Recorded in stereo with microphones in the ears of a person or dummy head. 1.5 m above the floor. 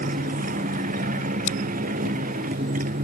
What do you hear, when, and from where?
0.0 s a motorcycle: 45° right (ahead or behind)
1.5 s scissors: 45° left (ahead or behind)